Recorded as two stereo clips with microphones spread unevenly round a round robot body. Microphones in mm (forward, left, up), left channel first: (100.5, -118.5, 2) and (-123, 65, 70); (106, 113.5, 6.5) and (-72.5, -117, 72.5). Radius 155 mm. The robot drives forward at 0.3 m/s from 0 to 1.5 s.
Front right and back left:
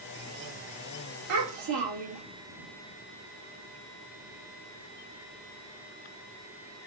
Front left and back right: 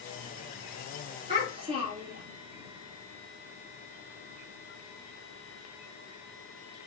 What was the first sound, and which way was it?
A child speaking, 160° left.